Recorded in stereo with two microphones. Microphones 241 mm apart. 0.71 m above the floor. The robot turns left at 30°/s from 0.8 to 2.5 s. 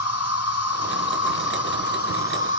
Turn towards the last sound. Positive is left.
turn(degrees=50)